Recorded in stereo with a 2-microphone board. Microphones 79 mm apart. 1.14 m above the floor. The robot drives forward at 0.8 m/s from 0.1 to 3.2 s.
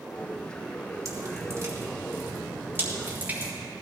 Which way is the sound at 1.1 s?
45° right (ahead or behind).